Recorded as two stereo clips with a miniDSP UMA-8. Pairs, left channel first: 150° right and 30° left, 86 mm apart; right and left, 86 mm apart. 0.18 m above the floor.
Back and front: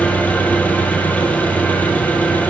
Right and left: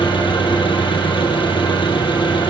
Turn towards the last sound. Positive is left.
turn(degrees=-80)